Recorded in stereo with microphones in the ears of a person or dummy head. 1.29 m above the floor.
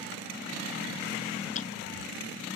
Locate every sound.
1.6 s ticking: 35° left (ahead or behind)